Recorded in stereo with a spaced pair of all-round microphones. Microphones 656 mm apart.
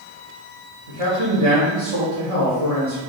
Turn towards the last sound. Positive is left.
turn(degrees=-55)  # may be behind; listen again after turning